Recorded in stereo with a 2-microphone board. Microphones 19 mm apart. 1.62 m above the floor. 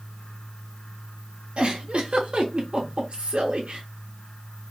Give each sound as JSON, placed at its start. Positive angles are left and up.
{"t": 1.6, "sound": "a giggle", "side_deg": -70, "distance_m": 1.0}